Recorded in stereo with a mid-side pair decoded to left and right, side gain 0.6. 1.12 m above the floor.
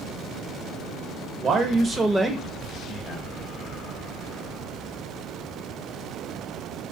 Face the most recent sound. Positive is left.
turn(degrees=50)